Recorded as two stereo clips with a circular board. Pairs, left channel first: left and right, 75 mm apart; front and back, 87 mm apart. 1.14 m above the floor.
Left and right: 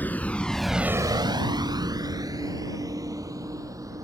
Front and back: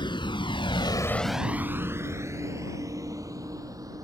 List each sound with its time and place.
0.0 s a vehicle: 25° left; by 4.0 s 130° right